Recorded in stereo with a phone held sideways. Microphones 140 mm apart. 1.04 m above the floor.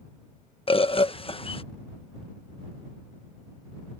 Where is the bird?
40° left (ahead or behind).